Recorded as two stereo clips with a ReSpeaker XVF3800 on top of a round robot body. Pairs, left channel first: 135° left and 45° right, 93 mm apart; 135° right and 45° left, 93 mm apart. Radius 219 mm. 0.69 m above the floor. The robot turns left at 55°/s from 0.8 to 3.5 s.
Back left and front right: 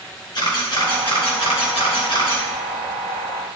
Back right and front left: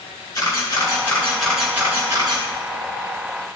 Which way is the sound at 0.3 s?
175° left.